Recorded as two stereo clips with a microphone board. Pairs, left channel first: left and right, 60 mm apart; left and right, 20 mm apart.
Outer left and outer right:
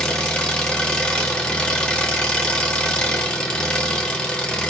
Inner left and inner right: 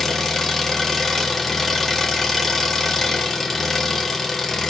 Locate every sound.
0.0 s an engine running: 15° left (ahead or behind), 1.8 m